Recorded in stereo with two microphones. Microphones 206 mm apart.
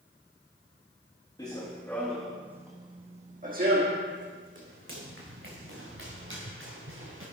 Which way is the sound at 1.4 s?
20° left (ahead or behind).